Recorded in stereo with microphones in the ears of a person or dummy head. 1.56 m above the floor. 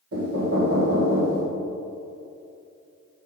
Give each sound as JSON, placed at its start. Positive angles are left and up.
{"t": 0.1, "sound": "knocking", "side_deg": -80, "distance_m": 1.6}